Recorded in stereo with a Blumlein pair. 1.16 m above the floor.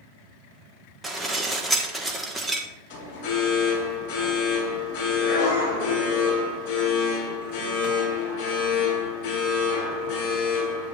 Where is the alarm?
50° left, 5.5 m.